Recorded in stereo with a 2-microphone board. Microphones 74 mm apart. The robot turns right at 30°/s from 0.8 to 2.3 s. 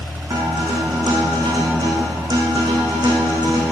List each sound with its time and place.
0.3 s a guitar: 115° right, 4.5 m; by 3.7 s 70° right, 4.5 m